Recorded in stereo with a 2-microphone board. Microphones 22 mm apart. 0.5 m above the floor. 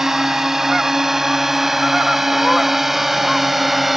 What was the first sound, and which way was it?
A drone, 20° right (ahead or behind).